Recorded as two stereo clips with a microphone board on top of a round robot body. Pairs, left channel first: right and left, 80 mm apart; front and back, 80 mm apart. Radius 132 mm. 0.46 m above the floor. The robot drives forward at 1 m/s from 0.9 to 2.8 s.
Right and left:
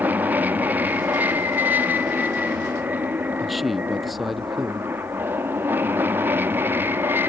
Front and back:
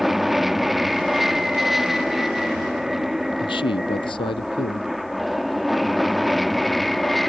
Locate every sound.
0.0 s an aircraft: 95° left; by 7.3 s 85° left
3.4 s a man speaking: straight ahead